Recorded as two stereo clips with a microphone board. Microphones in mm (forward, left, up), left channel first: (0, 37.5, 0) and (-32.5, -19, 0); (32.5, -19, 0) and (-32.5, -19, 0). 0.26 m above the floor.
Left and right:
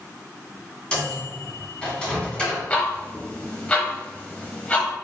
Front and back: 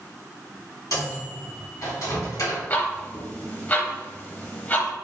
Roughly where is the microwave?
Ahead.